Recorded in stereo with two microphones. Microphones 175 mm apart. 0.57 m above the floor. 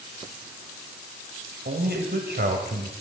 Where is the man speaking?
70° right (ahead or behind), 2 m.